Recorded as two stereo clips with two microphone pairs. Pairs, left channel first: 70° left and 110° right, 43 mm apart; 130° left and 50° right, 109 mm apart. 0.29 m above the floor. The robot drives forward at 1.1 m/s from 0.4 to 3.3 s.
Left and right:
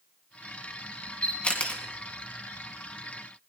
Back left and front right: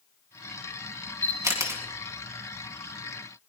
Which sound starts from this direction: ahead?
A camera shutter, at 1.2 s.